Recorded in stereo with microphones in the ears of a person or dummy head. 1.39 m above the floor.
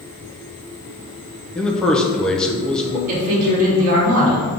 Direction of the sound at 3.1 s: 40° right (ahead or behind).